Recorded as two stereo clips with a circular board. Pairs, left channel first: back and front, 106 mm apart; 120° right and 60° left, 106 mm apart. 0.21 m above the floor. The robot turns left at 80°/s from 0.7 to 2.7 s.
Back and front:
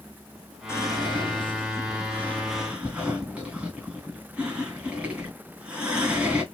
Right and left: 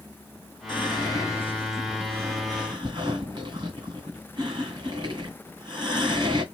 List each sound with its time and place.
0.7 s whispering: 125° right, 2 m; by 6.4 s 75° left, 2 m